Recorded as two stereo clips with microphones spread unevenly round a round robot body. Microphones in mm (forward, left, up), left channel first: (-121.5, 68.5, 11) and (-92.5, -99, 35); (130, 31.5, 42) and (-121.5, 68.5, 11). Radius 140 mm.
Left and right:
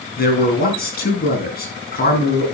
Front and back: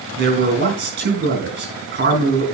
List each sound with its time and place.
0.2 s a man speaking: 125° left, 7.5 m